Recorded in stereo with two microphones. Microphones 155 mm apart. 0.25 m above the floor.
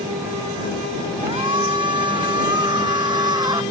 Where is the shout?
30° right (ahead or behind); by 3.6 s 25° right (ahead or behind).